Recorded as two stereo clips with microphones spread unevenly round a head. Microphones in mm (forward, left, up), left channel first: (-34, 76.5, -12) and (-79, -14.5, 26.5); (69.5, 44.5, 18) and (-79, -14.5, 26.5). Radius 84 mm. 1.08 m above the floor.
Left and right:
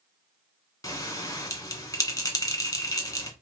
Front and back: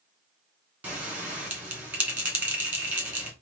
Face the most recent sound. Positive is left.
turn(degrees=120)